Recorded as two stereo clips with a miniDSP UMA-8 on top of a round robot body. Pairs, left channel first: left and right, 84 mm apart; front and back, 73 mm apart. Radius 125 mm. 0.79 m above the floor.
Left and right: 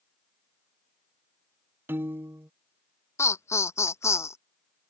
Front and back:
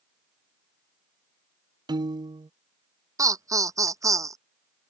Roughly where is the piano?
Behind right.